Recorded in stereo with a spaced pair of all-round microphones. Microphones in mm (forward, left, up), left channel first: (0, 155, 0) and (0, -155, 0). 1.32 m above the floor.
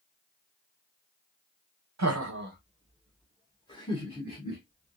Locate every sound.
2.0 s laughter: 60° right (ahead or behind), 0.6 m; by 5.0 s 30° left (ahead or behind), 1.6 m